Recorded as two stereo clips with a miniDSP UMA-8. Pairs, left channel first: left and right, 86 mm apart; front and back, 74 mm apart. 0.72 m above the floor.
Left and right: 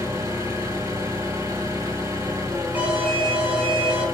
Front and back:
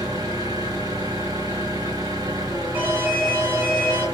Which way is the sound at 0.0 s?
145° right.